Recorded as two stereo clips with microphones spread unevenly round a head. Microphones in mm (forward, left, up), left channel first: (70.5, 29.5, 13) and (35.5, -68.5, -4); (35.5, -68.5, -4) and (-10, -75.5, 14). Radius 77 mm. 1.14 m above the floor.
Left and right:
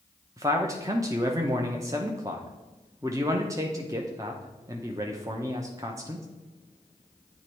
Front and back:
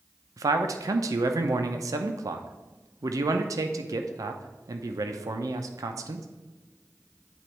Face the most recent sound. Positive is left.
turn(degrees=-175)